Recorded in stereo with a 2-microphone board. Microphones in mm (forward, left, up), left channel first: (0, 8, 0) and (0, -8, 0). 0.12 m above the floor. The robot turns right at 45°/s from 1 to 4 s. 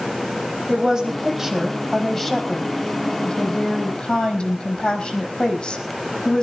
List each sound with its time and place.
0.7 s a woman speaking: 30° right, 4.5 m; by 6.4 s 105° left, 4.5 m